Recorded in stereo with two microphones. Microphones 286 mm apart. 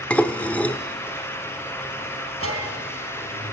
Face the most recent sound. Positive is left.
turn(degrees=-50)  # may be behind; listen again after turning